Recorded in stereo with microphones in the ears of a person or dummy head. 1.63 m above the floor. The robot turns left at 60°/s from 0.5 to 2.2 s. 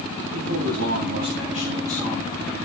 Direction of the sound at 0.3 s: 80° right.